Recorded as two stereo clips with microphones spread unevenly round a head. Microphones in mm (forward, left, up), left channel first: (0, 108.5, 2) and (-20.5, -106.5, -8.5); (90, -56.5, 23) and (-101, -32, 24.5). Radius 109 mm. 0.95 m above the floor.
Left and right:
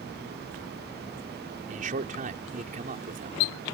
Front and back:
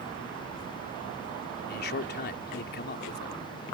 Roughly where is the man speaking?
Ahead right.